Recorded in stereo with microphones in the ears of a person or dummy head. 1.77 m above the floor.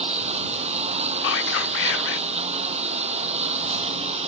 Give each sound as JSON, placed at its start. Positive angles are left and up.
{"t": 0.0, "sound": "a lawn mower", "side_deg": -30}
{"t": 1.2, "sound": "whispering", "side_deg": 75}